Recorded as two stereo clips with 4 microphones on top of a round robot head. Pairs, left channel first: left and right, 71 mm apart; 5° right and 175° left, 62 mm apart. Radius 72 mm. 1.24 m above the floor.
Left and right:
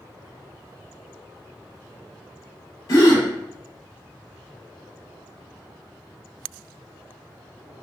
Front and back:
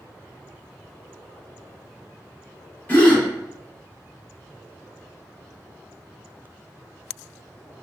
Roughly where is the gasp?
Ahead left.